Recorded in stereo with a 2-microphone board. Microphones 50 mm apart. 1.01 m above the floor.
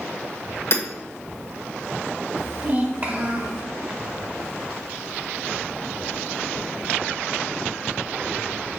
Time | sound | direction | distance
0.7 | hammering | 55° left (ahead or behind) | 1.5 m
2.4 | a child speaking | 45° right (ahead or behind) | 1.1 m